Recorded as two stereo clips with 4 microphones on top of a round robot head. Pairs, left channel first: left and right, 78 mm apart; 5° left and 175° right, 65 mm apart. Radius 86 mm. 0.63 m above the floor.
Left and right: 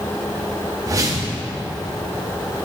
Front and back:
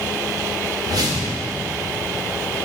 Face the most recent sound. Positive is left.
turn(degrees=-140)